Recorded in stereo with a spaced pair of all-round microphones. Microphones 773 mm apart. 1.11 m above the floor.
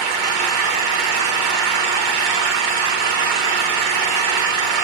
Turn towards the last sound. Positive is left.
turn(degrees=-80)